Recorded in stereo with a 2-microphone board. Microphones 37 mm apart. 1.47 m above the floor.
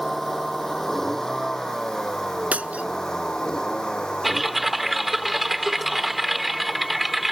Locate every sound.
0.0 s a vehicle: 10° left (ahead or behind); by 7.3 s 30° left (ahead or behind)
2.5 s breaking glass: 40° right (ahead or behind)
4.2 s typing on a keyboard: 5° right (ahead or behind)